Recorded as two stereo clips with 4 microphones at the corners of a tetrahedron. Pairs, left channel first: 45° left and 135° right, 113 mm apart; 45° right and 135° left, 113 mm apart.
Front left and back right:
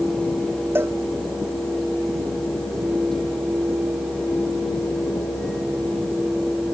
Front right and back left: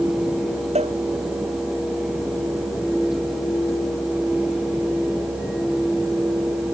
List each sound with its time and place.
0.8 s a cowbell: 155° left